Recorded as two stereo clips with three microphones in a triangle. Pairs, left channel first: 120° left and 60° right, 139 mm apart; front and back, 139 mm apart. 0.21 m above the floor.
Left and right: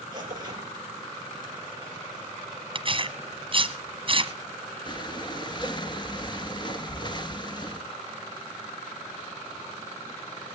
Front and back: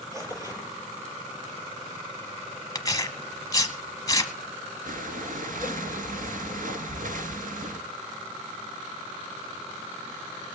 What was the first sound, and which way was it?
Tearing paper, 115° right.